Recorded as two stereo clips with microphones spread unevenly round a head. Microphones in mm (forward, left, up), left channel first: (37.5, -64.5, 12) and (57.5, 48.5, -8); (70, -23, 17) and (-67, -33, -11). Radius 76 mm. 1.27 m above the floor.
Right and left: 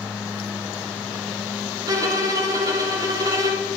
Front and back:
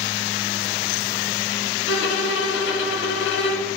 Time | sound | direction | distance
1.9 | a violin | 25° left | 1.0 m